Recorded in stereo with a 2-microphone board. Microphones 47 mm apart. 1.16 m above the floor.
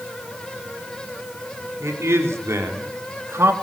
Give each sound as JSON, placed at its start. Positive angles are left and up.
{"t": 1.8, "sound": "a man speaking", "side_deg": -80, "distance_m": 4.0}